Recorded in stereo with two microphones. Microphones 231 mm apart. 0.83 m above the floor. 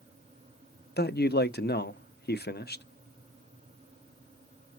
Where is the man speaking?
45° left (ahead or behind), 0.7 m.